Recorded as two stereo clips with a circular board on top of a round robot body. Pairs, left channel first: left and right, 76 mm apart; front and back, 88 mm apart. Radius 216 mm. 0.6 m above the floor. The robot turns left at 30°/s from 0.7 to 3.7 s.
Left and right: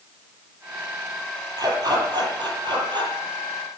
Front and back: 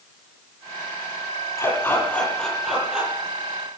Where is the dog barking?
55° right, 9.5 m; by 3.1 s 105° right, 9.5 m.